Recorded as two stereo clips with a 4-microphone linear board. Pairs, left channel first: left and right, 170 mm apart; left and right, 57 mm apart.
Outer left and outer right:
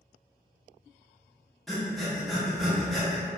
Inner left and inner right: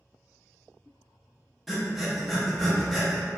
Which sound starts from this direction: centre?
Breathing, at 1.7 s.